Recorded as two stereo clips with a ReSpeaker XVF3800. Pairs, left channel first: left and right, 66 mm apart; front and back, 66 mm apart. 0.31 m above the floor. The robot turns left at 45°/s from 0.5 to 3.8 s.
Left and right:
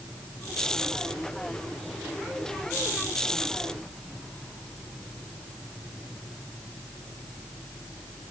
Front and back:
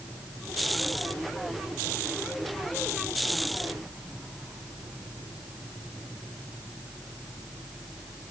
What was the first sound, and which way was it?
Only background noise.